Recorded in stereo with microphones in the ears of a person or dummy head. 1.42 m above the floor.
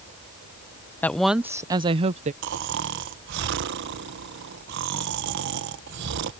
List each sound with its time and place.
1.0 s a woman speaking: 5° left (ahead or behind); by 2.3 s 40° right (ahead or behind)
2.4 s snoring: 65° right (ahead or behind)